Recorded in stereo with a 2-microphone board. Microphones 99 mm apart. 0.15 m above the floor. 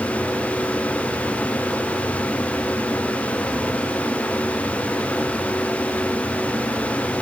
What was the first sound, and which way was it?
Only background noise.